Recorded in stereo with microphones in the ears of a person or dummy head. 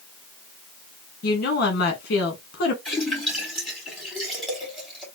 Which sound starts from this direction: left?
A woman speaking, at 1.2 s.